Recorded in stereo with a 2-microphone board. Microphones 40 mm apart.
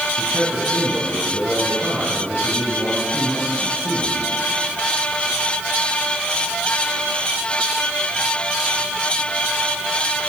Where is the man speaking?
70° right (ahead or behind), 9 m.